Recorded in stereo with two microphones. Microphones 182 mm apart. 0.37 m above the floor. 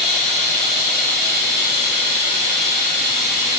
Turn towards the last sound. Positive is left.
turn(degrees=-75)  # may be behind; listen again after turning